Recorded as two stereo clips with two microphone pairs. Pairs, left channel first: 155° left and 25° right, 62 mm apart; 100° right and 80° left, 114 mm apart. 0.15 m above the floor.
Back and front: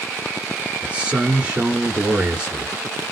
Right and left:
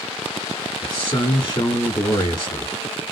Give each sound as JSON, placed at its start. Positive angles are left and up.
{"t": 0.8, "sound": "a man speaking", "azimuth_deg": -90, "distance_m": 1.2}